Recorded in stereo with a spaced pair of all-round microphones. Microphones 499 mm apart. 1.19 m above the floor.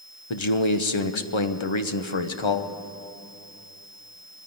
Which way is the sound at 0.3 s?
65° left (ahead or behind).